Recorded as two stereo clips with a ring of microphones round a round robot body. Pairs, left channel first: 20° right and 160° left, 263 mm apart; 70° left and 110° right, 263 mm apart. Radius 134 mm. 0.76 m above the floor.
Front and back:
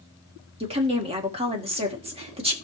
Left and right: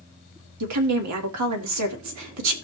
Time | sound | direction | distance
0.6 | a woman speaking | 135° right | 1.6 m